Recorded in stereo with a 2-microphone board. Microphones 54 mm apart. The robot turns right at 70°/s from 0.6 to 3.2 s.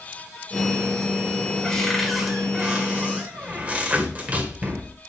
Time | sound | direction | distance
1.6 | a cupboard door | 10° left (ahead or behind) | 1.4 m